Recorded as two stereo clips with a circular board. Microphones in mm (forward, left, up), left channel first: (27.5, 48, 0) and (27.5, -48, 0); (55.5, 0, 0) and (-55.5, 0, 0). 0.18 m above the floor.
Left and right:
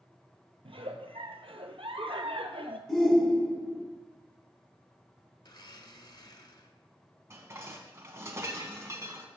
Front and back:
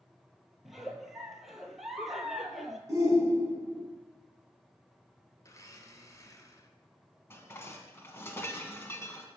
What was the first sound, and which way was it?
A giggle, 90° right.